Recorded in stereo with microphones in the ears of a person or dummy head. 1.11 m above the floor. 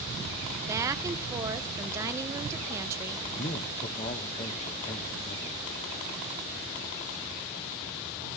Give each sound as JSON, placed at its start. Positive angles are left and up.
{"t": 0.7, "sound": "a woman speaking", "side_deg": -15, "distance_m": 0.6}
{"t": 3.4, "sound": "a man speaking", "side_deg": 30, "distance_m": 0.7}